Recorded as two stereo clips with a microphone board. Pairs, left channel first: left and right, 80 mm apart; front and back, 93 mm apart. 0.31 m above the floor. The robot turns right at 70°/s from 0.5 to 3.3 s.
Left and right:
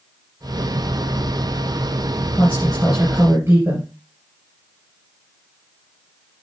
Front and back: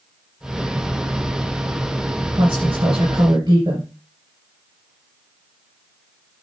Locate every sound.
2.3 s a woman speaking: 145° left, 5 m; by 3.9 s 150° right, 5 m